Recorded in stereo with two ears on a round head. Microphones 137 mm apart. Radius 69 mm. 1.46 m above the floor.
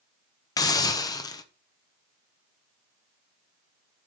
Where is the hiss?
25° left (ahead or behind), 1.1 m.